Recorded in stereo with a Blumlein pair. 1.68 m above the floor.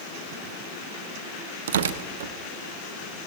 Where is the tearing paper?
60° right, 0.6 m.